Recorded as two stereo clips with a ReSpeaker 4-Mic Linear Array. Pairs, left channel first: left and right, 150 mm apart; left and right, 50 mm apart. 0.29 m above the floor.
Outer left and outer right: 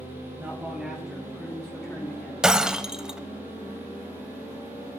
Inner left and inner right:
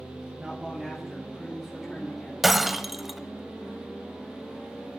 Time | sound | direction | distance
0.4 | a man speaking | 20° right (ahead or behind) | 1.9 m
2.4 | breaking glass | 5° right (ahead or behind) | 0.7 m